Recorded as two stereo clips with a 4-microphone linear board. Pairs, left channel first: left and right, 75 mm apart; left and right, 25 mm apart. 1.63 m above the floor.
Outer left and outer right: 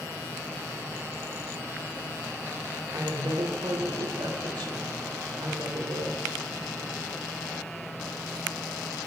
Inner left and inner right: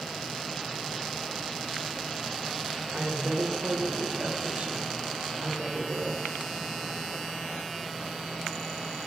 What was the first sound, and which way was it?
A woman speaking, 85° right.